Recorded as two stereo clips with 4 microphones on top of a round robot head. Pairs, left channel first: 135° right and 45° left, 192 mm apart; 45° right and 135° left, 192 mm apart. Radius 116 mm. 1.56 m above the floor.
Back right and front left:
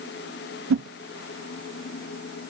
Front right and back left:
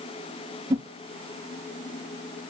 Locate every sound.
0.7 s a whoosh: 65° left, 0.5 m